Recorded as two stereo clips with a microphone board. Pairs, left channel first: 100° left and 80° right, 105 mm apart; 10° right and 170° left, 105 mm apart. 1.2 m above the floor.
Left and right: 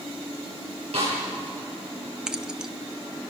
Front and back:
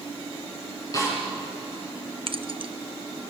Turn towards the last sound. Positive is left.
turn(degrees=-160)